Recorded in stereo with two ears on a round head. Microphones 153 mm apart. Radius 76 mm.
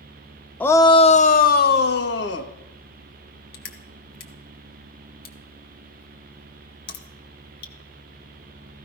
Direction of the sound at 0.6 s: 10° left (ahead or behind).